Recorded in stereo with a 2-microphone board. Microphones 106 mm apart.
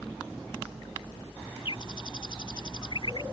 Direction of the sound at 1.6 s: 50° left (ahead or behind).